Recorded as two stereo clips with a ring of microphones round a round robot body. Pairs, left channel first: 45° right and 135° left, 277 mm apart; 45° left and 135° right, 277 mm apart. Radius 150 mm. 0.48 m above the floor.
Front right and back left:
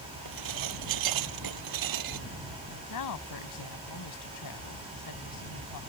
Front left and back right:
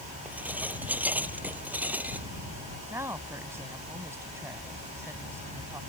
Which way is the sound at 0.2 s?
140° left.